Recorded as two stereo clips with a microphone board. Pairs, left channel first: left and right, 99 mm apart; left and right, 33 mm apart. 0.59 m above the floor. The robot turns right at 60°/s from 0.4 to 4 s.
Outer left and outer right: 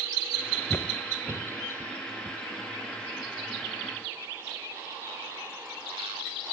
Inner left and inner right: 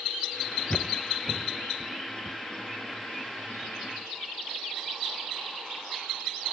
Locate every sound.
0.7 s footsteps: 25° left (ahead or behind), 0.6 m; by 3.8 s 75° left (ahead or behind), 1.9 m